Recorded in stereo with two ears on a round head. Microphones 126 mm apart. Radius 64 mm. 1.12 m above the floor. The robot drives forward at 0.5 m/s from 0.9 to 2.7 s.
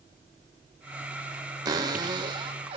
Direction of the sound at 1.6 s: 25° right (ahead or behind).